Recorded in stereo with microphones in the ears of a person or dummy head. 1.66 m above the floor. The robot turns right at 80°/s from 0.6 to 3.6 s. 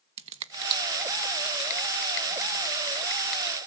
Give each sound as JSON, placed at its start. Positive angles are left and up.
{"t": 0.2, "sound": "a finger snap", "side_deg": -35, "distance_m": 1.1}